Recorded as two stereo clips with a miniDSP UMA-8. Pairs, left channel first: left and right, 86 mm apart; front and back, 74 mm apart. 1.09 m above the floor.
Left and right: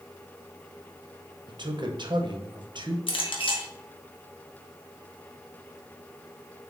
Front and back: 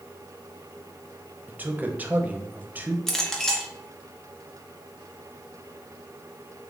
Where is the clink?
85° left, 0.7 m.